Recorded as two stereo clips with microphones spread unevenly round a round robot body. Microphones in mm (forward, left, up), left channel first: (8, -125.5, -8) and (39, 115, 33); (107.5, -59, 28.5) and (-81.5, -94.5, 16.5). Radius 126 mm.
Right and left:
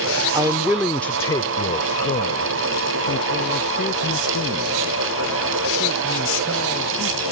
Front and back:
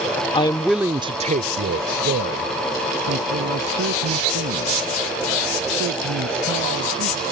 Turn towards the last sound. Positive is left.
turn(degrees=-160)